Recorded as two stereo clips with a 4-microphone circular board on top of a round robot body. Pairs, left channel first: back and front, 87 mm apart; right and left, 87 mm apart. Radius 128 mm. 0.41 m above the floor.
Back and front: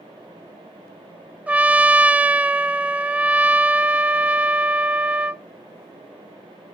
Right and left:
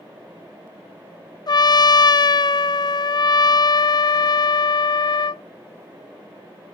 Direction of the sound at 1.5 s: 70° right.